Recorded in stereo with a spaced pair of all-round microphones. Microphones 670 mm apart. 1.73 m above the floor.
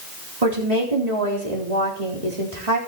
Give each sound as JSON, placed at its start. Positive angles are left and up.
{"t": 0.4, "sound": "a woman speaking", "side_deg": -75, "distance_m": 4.0}